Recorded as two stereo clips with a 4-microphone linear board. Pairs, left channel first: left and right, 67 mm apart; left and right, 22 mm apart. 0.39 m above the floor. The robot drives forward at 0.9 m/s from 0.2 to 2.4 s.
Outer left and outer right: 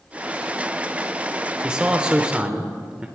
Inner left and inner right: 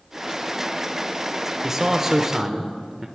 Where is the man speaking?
15° right (ahead or behind), 1.0 m.